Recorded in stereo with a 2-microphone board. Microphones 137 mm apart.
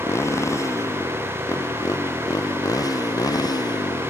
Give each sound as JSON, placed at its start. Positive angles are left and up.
{"t": 0.0, "sound": "a motorcycle", "side_deg": 20}